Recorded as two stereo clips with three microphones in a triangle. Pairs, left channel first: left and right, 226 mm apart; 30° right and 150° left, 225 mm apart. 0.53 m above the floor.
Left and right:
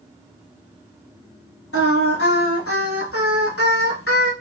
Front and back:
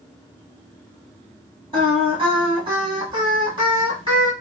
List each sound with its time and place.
1.7 s singing: 85° left, 1.2 m